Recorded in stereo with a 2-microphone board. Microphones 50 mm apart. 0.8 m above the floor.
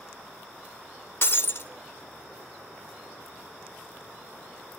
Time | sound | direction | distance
1.2 | breaking glass | 55° left (ahead or behind) | 0.6 m